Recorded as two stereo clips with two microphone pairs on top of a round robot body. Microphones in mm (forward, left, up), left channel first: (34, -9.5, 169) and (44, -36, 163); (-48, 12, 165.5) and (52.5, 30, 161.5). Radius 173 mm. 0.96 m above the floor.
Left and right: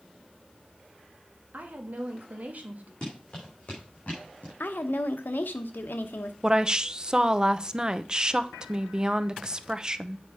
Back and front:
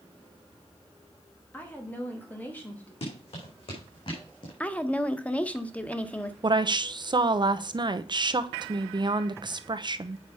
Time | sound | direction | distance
1.5 | a woman speaking | 95° right | 1.9 m
3.0 | running footsteps | 170° left | 4.5 m
4.6 | a woman speaking | 115° left | 1.0 m
6.4 | a woman speaking | 20° right | 0.9 m